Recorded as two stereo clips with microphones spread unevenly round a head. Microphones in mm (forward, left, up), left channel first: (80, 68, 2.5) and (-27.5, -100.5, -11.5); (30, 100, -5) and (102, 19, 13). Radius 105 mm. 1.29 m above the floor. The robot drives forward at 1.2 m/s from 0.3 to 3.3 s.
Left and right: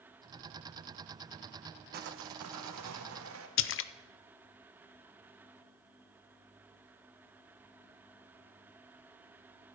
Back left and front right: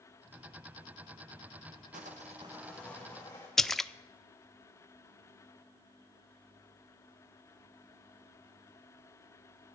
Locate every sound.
1.9 s sawing: 80° right, 0.8 m; by 3.5 s 155° right, 1.7 m
3.6 s a splash: 50° left, 0.5 m